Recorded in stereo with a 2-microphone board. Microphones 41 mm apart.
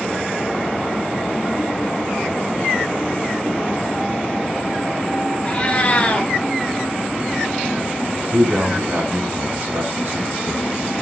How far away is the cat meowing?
About 2 m.